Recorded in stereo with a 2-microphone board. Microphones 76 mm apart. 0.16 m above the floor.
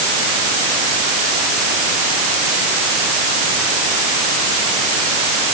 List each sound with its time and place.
Only background noise.